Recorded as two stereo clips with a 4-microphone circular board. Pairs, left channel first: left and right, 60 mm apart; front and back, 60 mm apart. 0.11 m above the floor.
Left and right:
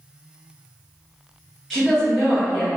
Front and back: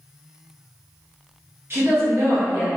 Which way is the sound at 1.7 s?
175° left.